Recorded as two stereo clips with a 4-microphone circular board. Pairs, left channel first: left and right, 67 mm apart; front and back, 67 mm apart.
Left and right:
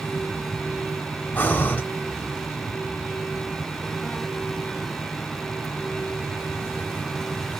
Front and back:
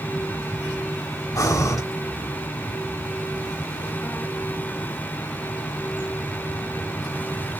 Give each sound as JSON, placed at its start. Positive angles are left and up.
{"t": 1.4, "sound": "breathing", "azimuth_deg": 30, "distance_m": 0.7}